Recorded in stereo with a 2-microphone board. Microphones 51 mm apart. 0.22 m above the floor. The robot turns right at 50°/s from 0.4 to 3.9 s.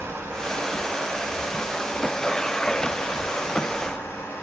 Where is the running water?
70° right, 1.7 m; by 4.4 s 105° left, 1.7 m.